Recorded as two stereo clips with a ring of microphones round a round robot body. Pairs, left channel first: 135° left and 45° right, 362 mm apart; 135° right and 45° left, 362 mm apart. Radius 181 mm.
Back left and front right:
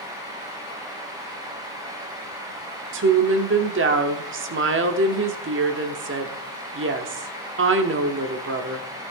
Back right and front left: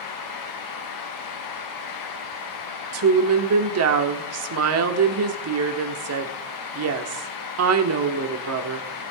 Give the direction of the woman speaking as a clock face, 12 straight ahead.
12 o'clock.